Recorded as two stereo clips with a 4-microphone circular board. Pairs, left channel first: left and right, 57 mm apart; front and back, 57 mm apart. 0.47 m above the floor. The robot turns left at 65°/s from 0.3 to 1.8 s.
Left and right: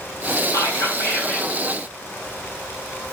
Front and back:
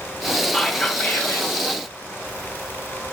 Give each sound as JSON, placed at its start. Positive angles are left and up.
{"t": 0.5, "sound": "whispering", "azimuth_deg": 85, "distance_m": 2.5}